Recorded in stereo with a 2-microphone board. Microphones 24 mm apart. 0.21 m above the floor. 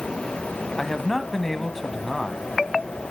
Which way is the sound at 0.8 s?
15° left (ahead or behind).